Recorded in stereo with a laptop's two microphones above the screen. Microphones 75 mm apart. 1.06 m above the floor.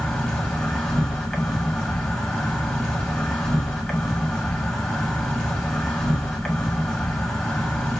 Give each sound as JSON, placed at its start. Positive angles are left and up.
{"t": 0.0, "sound": "an insect", "side_deg": 10, "distance_m": 1.2}